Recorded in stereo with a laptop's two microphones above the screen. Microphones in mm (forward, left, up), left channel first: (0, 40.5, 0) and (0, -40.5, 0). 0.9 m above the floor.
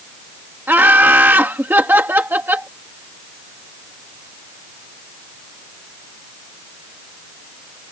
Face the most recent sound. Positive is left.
turn(degrees=-25)  # may be behind; listen again after turning